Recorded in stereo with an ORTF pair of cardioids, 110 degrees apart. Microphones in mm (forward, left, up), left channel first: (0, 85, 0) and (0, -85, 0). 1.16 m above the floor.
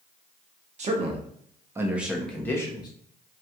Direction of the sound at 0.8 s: 45° right.